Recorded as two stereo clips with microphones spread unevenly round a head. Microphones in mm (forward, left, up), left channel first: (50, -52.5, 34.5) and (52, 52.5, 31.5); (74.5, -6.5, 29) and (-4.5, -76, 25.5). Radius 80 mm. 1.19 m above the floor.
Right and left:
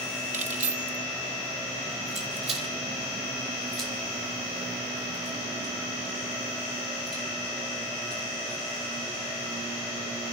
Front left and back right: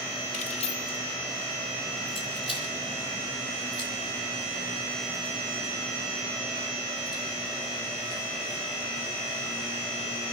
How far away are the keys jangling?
About 1.1 m.